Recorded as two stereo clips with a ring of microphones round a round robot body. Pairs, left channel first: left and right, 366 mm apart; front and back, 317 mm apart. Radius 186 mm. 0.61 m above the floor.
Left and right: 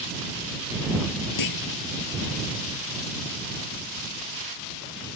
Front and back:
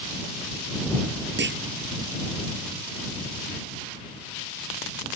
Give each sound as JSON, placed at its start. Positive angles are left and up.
{"t": 1.4, "sound": "a clunk", "azimuth_deg": 125}